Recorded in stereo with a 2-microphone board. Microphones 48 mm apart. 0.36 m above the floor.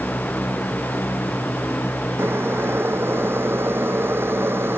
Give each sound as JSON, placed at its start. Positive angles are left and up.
{"t": 2.2, "sound": "boiling", "side_deg": -50}